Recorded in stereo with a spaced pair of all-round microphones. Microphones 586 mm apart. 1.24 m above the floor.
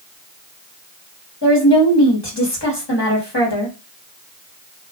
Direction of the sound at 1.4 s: 45° left (ahead or behind).